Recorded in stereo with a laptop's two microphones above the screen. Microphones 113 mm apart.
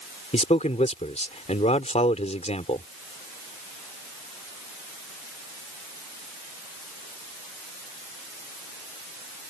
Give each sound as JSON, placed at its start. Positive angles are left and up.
{"t": 0.3, "sound": "a man speaking", "side_deg": 75}